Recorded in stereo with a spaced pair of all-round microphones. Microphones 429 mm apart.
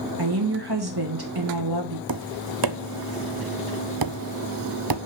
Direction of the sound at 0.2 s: 60° right (ahead or behind).